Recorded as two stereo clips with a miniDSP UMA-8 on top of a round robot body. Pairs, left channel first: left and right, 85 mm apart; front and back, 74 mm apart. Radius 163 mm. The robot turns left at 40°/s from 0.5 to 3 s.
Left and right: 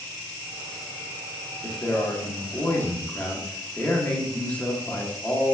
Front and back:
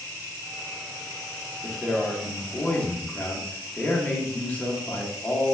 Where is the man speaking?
95° left, 1.2 m; by 5.5 s 40° left, 1.2 m.